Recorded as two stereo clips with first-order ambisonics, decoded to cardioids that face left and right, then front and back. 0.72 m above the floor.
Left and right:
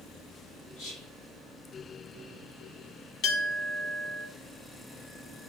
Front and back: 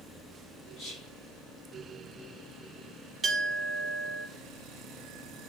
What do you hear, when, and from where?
0.8 s whispering: 50° left, 5 m
3.2 s a clink: 110° left, 1.5 m